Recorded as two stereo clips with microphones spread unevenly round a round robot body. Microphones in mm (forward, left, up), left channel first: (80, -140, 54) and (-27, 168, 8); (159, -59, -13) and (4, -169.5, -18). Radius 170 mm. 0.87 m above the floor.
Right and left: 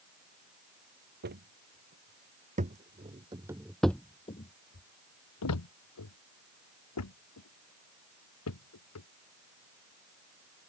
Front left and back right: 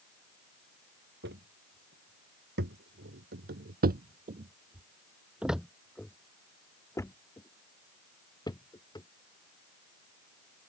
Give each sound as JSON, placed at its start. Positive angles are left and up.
{"t": 1.2, "sound": "footsteps", "azimuth_deg": 170}